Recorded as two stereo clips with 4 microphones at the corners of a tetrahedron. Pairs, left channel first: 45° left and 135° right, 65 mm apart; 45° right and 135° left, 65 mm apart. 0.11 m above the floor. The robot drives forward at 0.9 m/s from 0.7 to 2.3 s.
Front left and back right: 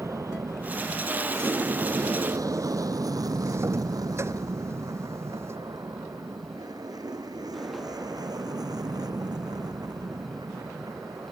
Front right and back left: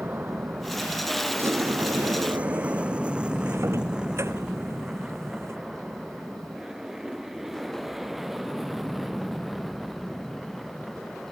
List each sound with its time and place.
0.0 s an aircraft: 170° right; by 11.3 s 135° right
1.4 s a sliding door: straight behind